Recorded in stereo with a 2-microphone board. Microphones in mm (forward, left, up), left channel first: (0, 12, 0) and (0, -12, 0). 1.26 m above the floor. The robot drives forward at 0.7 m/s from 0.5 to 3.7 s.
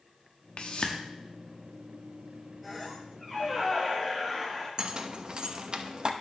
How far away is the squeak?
About 4.5 m.